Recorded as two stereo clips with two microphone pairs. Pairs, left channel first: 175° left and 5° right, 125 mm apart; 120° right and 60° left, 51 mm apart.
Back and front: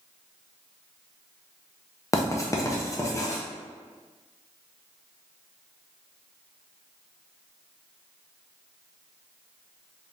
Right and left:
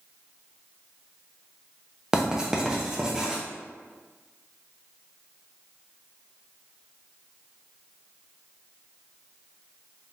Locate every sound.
2.1 s writing: 130° left, 0.6 m